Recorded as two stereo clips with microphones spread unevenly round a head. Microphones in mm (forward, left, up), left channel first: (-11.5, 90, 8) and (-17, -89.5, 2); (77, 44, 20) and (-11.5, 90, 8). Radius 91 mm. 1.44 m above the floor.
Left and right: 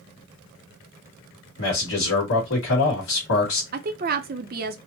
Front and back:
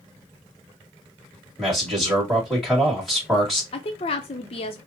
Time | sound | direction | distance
1.6 | a man speaking | 65° left | 2.5 m
3.7 | a woman speaking | 55° right | 0.6 m